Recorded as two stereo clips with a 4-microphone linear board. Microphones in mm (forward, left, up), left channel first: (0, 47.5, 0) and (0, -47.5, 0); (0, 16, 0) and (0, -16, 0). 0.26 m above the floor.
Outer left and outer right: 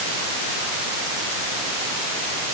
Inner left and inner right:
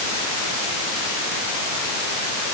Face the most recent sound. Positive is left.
No sound to turn to.